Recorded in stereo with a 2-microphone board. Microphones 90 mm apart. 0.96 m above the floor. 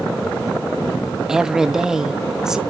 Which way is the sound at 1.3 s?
5° right (ahead or behind).